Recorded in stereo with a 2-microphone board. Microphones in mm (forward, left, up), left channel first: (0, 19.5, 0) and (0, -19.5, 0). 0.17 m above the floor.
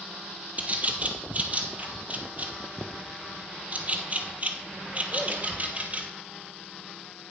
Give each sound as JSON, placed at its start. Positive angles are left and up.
{"t": 0.6, "sound": "a bird", "side_deg": -35, "distance_m": 0.9}